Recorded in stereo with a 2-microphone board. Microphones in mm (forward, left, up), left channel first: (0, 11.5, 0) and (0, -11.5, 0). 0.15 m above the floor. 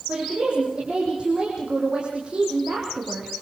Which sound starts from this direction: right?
A woman speaking, at 0.1 s.